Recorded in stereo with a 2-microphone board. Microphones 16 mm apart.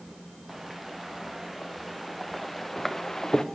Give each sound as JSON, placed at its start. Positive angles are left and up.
{"t": 0.5, "sound": "footsteps", "side_deg": -15, "distance_m": 4.0}